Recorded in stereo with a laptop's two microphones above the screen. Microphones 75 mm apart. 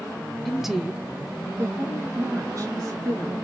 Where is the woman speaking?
Centre (ahead or behind), 0.8 m; by 3.4 s 55° right (ahead or behind), 1.9 m.